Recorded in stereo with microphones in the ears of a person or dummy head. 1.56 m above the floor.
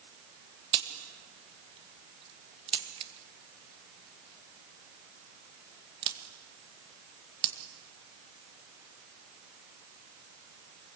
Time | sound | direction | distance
0.7 | a crack | 30° right (ahead or behind) | 1.9 m